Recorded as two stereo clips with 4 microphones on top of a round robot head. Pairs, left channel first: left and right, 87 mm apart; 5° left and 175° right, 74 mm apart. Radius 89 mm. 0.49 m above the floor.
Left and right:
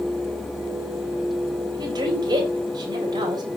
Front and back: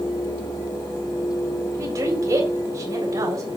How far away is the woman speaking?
About 3.5 m.